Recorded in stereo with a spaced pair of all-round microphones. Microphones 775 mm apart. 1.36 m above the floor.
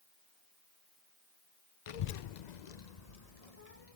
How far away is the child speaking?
About 0.5 m.